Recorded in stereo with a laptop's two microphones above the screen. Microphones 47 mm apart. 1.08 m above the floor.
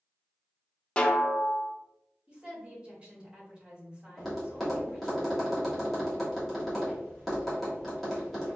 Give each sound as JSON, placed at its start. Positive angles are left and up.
{"t": 1.0, "sound": "a snare drum", "side_deg": 25, "distance_m": 0.6}
{"t": 2.3, "sound": "a woman speaking", "side_deg": -25, "distance_m": 1.4}
{"t": 4.2, "sound": "tapping", "side_deg": 0, "distance_m": 1.2}